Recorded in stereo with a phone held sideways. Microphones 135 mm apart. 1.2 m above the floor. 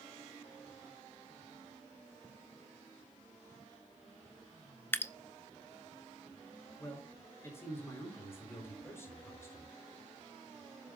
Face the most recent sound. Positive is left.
turn(degrees=20)  # may be behind; listen again after turning